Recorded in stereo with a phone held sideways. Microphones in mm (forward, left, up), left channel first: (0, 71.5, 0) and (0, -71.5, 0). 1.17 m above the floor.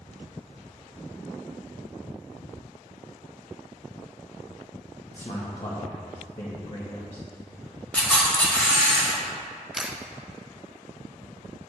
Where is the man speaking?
45° left (ahead or behind), 1.3 m.